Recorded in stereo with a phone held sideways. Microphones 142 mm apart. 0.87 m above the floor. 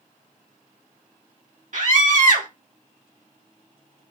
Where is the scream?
65° right (ahead or behind), 2 m.